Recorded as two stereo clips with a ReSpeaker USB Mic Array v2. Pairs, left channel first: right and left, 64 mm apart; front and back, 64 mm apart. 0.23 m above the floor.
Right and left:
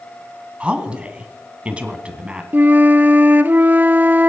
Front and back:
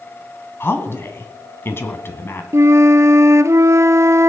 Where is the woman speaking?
25° left, 1.8 m.